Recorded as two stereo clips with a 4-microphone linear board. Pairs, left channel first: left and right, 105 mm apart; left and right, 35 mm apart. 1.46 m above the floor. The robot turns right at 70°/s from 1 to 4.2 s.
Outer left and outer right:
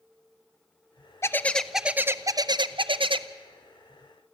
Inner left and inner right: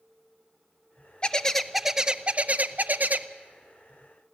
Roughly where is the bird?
Behind left.